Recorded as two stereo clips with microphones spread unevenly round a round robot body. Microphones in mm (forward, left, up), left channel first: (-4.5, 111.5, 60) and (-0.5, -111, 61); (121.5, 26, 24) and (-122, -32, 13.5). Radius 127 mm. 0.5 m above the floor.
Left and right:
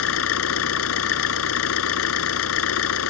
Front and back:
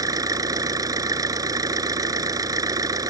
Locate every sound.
0.0 s an engine running: 115° left